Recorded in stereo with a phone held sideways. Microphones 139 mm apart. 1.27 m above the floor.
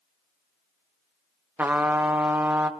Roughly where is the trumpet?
Centre.